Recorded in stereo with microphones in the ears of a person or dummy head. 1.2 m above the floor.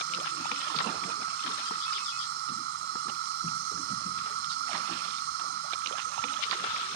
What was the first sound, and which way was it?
An insect, 65° right (ahead or behind).